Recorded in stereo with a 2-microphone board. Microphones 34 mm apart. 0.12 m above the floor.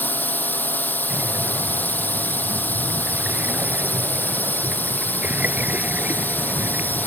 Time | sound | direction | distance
0.0 | a drone | 60° left (ahead or behind) | ?
1.1 | breathing | 50° right (ahead or behind) | ?